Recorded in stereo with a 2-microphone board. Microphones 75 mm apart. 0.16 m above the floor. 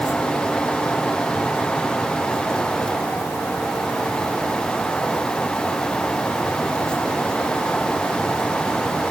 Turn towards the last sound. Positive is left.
No sound to turn to.